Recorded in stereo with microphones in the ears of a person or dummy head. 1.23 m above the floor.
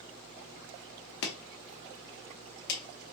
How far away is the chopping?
About 0.9 m.